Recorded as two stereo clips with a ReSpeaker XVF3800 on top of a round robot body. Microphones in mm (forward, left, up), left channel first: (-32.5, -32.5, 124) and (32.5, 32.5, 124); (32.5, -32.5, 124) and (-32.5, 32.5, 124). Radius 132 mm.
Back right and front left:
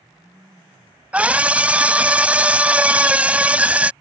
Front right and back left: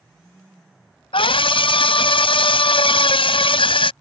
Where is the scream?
30° right.